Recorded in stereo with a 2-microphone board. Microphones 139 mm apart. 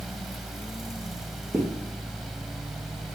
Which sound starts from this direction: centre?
A zipper, at 1.5 s.